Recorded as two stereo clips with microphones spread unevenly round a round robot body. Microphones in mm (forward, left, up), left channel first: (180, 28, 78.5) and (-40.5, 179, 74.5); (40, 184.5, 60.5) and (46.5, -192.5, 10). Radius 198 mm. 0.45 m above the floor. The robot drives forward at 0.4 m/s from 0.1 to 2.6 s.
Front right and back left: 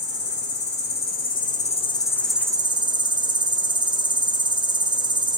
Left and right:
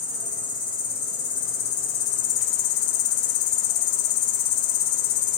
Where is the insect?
15° left, 1.2 m; by 5.4 s 75° left, 0.5 m.